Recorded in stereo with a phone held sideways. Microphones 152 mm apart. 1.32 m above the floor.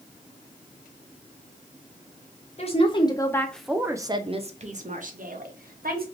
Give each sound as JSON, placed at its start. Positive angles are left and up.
{"t": 2.6, "sound": "a woman speaking", "side_deg": 45, "distance_m": 0.8}